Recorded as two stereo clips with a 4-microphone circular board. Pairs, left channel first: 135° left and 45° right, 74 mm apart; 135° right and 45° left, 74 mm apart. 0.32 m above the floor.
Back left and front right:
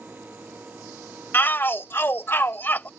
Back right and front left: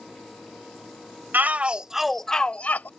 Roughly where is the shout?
Left.